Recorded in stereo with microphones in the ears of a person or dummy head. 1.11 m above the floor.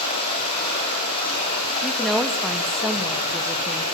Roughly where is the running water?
Left.